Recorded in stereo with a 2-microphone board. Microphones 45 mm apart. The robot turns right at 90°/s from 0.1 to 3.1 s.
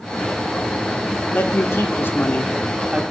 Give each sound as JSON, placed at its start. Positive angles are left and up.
{"t": 1.3, "sound": "a man speaking", "azimuth_deg": 50, "distance_m": 1.2}